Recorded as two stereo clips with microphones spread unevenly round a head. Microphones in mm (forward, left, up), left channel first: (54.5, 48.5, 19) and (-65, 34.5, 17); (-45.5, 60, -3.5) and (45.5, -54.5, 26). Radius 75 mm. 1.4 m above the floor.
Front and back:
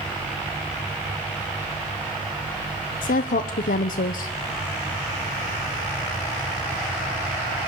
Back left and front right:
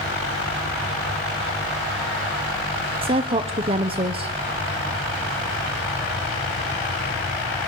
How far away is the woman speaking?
About 0.7 m.